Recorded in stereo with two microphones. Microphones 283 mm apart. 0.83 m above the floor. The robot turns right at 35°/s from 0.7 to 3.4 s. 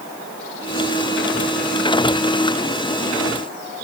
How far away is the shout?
I don't hear a shout.